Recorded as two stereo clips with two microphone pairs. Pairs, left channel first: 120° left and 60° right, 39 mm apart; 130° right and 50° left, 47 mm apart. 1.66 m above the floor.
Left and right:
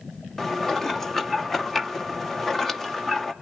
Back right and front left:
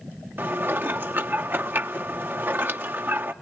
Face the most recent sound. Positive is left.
turn(degrees=45)